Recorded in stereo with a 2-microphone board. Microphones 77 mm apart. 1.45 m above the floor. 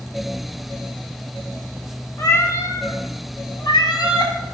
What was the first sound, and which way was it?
A cat meowing, 30° left (ahead or behind).